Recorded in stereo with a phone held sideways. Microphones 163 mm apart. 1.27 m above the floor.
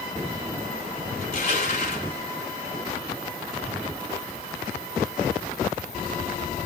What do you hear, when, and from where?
1.2 s crushing: 45° left (ahead or behind), 3.5 m